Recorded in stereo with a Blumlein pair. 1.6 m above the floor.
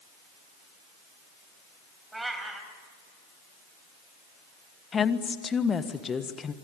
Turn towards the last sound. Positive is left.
turn(degrees=20)